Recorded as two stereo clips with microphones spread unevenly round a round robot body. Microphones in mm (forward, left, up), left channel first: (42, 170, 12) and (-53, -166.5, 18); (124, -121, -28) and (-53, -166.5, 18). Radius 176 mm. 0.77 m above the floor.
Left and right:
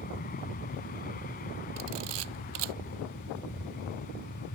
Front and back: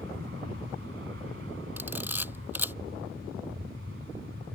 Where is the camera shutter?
85° right.